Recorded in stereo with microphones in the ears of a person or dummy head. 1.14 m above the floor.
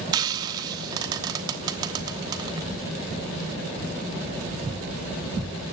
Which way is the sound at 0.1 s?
25° right (ahead or behind).